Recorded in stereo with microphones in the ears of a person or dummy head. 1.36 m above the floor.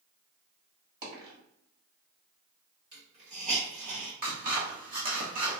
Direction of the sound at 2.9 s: 55° right (ahead or behind).